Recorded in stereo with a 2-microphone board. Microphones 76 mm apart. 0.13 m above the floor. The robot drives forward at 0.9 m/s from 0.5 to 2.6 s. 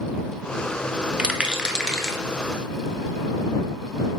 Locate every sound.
1.2 s a rattle: 15° right (ahead or behind), 0.7 m; by 2.2 s 5° right (ahead or behind), 1.3 m